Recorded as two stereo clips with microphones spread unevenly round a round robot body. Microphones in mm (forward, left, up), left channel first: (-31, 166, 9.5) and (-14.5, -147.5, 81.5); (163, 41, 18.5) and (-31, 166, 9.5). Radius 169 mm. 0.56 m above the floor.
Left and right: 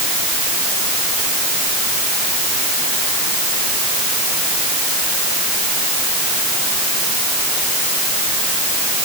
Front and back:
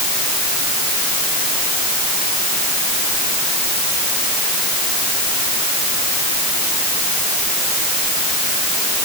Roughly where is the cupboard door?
I don't hear a cupboard door.